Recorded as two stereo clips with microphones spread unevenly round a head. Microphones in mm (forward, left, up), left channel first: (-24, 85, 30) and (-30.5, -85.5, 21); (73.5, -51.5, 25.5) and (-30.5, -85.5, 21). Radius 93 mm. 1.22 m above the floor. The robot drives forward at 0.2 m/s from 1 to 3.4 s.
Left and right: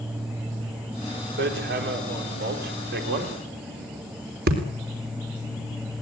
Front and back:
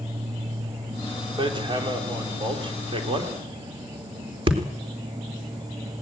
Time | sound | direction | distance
1.4 | hammering | 115° right | 3 m